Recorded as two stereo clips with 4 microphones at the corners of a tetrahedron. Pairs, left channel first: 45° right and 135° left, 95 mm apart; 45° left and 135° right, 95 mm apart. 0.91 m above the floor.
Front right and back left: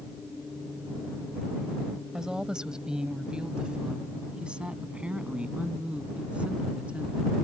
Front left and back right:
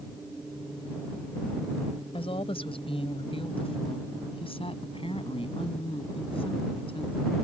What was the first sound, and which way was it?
A woman speaking, 50° left.